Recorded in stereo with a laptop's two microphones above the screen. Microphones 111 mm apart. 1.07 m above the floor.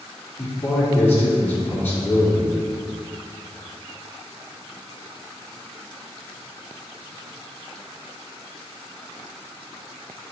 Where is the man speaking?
20° left (ahead or behind), 3 m.